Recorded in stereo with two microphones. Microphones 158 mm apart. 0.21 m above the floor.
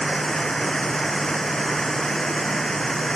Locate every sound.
0.0 s running water: 5° left (ahead or behind)